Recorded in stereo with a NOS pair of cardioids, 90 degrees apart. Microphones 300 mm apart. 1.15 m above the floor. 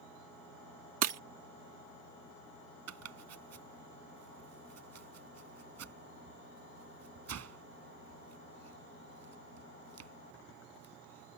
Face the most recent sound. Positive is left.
turn(degrees=-60)